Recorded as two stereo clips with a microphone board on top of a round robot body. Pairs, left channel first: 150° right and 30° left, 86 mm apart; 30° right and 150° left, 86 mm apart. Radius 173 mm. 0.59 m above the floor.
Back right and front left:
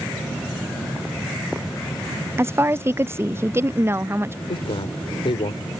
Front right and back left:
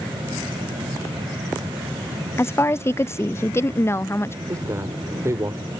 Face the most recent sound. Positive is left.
turn(degrees=-155)